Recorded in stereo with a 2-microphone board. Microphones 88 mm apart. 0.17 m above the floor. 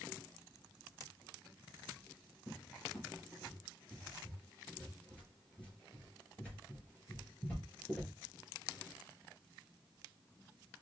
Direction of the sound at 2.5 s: 15° left (ahead or behind).